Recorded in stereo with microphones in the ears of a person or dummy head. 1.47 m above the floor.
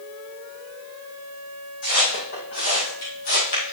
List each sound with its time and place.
1.8 s footsteps: 40° left (ahead or behind), 4 m